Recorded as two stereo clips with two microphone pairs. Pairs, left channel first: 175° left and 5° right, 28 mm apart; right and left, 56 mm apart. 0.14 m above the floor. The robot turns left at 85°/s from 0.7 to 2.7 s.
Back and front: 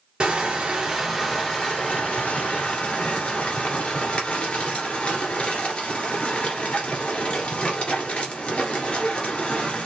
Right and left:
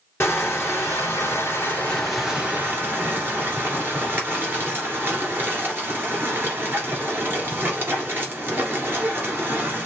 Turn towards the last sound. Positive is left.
turn(degrees=130)